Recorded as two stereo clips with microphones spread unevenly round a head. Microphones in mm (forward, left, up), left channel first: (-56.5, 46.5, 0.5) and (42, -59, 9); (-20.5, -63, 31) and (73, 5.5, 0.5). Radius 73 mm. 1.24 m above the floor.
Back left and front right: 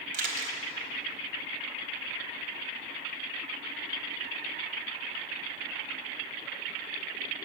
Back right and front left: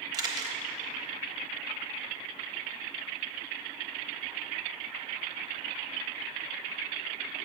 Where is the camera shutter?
25° right, 1.0 m.